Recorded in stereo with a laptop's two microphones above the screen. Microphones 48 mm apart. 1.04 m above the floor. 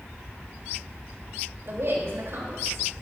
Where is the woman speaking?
65° right (ahead or behind), 4 m.